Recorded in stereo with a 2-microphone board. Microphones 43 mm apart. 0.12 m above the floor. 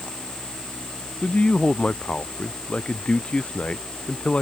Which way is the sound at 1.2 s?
25° left (ahead or behind).